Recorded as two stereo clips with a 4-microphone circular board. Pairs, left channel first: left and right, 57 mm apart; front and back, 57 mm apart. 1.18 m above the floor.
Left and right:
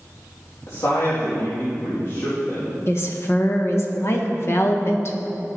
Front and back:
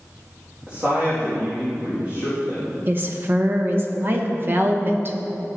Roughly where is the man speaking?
Behind left.